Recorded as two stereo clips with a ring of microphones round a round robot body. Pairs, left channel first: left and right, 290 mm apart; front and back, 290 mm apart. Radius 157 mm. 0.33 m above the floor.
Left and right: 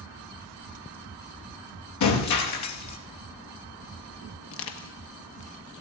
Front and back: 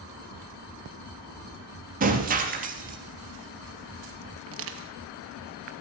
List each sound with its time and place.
2.0 s breaking glass: 120° left, 3 m
4.5 s crushing: 135° left, 1.6 m